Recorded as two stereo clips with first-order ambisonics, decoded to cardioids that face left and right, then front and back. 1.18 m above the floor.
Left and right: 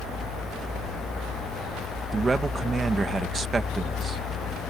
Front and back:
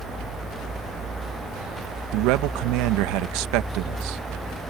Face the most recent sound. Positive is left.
turn(degrees=-165)